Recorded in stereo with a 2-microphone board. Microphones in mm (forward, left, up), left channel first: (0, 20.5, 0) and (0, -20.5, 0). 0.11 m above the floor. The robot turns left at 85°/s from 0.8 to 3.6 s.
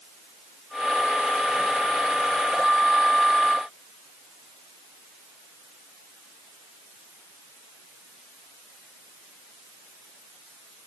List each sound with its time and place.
Only background noise.